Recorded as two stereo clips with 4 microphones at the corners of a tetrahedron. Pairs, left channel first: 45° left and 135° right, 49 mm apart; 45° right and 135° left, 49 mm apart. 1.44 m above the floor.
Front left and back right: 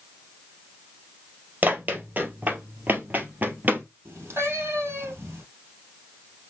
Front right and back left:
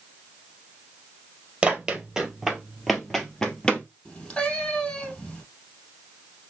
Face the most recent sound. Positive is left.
turn(degrees=-110)